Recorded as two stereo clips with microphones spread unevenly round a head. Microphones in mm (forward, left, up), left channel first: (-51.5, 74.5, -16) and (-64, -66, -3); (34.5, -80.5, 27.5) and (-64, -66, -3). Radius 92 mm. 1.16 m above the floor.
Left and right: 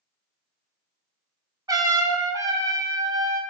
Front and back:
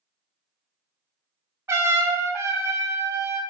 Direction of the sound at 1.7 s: 155° right.